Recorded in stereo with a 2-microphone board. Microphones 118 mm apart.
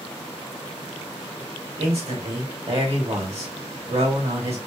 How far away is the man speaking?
About 2.5 m.